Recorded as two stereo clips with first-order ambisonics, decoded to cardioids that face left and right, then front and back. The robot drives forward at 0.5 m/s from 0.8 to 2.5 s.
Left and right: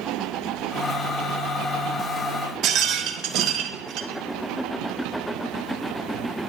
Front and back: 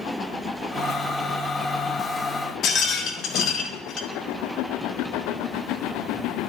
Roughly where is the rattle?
Ahead right.